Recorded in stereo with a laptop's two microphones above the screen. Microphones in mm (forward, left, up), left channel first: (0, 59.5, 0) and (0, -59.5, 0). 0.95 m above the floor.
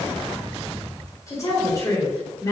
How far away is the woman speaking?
About 3.5 m.